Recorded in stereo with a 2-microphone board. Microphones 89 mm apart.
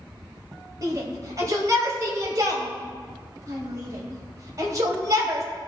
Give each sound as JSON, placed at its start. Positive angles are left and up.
{"t": 0.8, "sound": "a shout", "side_deg": -40, "distance_m": 2.5}